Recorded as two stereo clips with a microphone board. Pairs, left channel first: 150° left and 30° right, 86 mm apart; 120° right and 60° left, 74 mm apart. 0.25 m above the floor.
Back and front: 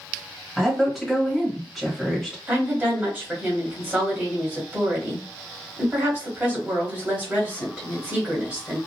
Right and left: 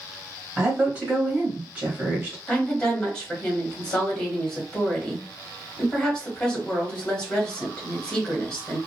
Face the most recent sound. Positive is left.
turn(degrees=-60)